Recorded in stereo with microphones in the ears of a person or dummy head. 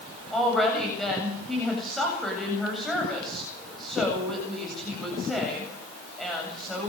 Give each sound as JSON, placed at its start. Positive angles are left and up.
{"t": 0.3, "sound": "a woman speaking", "side_deg": 0, "distance_m": 8.5}